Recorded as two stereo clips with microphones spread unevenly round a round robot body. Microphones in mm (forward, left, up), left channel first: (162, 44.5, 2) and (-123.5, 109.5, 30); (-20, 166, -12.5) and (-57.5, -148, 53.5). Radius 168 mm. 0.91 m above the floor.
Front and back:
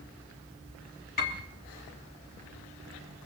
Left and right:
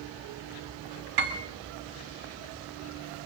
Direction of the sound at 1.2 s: 75° right.